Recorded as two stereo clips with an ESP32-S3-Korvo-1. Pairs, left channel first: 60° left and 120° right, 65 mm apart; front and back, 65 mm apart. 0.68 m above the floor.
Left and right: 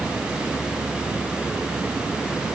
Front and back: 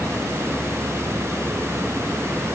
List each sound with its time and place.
Only background noise.